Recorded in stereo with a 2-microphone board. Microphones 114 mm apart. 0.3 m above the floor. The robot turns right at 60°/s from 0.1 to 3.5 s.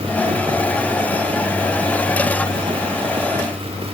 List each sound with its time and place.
Only background noise.